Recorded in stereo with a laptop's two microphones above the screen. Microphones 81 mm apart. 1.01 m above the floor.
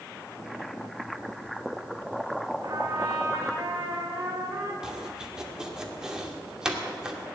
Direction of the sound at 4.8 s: 10° right (ahead or behind).